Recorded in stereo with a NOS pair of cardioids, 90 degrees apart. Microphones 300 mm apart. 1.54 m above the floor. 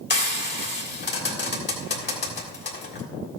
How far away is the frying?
About 3 m.